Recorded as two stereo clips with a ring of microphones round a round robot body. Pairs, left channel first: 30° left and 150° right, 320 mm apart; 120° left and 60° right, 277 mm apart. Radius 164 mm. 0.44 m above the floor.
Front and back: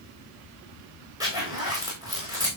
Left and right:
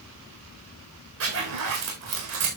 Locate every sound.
1.2 s a zipper: 70° right, 9 m